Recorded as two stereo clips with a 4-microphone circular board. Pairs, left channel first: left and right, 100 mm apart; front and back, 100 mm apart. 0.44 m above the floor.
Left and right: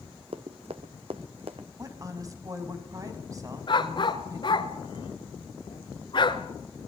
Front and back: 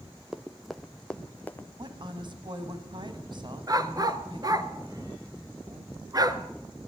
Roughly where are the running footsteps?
Right.